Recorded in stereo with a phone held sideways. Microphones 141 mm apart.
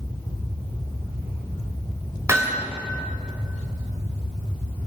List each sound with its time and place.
2.3 s hammering: 20° right (ahead or behind), 3.5 m